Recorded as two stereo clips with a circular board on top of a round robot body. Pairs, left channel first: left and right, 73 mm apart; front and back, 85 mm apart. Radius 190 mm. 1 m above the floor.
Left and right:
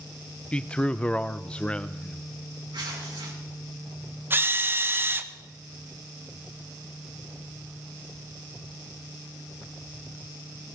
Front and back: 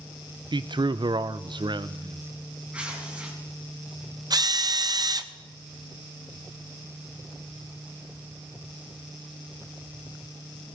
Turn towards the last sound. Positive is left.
turn(degrees=-145)